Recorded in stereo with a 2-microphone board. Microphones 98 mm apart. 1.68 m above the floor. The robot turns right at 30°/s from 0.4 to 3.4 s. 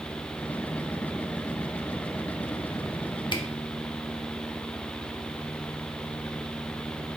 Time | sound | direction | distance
3.3 | a camera shutter | 50° left (ahead or behind) | 0.6 m